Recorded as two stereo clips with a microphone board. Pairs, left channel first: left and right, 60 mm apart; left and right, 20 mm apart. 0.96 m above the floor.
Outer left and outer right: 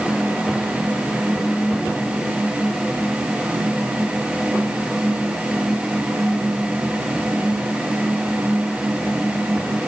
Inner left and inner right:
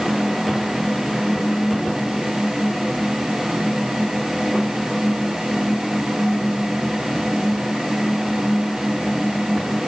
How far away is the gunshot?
I don't hear a gunshot.